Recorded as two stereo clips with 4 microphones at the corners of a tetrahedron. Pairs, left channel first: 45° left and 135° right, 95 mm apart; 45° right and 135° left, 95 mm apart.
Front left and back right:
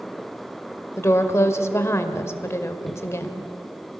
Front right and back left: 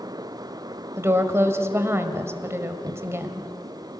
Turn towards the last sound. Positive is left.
turn(degrees=90)